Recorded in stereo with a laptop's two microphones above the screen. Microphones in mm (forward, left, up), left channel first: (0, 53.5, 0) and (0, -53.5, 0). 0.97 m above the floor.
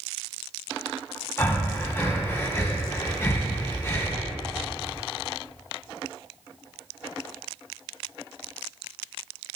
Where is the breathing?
25° left (ahead or behind), 1.3 m.